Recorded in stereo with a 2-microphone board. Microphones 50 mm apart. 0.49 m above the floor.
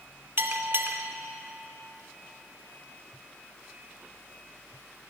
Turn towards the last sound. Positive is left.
turn(degrees=-45)  # may be behind; listen again after turning